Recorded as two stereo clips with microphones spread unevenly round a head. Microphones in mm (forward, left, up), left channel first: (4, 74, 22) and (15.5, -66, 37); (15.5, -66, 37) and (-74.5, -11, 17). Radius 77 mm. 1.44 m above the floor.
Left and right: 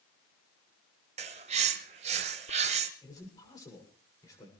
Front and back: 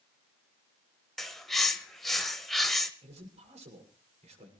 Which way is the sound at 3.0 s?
160° left.